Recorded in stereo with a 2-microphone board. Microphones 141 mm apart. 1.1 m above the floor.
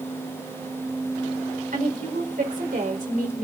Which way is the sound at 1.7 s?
75° right (ahead or behind).